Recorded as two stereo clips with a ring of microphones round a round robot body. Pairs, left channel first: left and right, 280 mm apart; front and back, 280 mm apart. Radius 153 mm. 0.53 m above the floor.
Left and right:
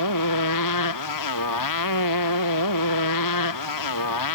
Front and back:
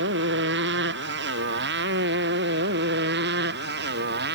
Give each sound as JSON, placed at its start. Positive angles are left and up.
{"t": 0.0, "sound": "a motorcycle", "azimuth_deg": 125}